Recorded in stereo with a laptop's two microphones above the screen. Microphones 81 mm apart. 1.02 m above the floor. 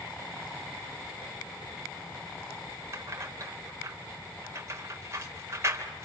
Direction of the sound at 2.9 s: 35° right (ahead or behind).